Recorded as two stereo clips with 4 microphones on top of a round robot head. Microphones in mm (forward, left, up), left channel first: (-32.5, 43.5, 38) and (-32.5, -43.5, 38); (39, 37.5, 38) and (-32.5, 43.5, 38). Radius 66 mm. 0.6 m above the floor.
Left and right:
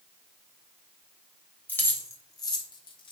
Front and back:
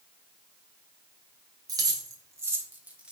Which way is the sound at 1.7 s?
160° left.